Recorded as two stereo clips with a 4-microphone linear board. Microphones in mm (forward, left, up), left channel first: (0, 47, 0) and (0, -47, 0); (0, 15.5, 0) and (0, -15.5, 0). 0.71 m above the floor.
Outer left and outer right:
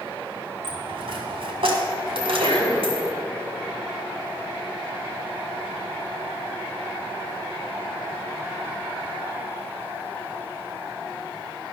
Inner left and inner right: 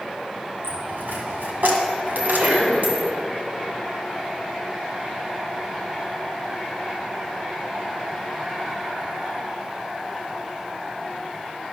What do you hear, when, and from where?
0.6 s a dropped coin: 70° right (ahead or behind), 2 m
2.2 s a sneeze: 70° right (ahead or behind), 3.5 m